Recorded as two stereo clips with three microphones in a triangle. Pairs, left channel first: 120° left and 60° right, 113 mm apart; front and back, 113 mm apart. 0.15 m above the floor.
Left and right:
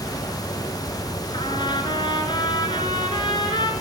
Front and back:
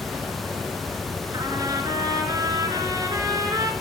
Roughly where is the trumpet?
Behind left.